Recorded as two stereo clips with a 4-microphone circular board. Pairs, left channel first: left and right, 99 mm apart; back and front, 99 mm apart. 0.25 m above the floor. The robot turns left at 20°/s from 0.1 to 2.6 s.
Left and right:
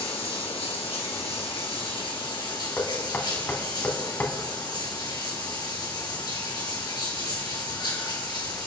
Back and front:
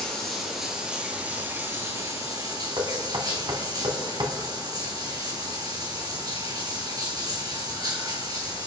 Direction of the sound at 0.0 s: 100° left.